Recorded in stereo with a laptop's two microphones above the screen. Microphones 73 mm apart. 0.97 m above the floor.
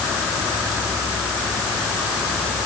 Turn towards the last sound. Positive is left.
No sound to turn to.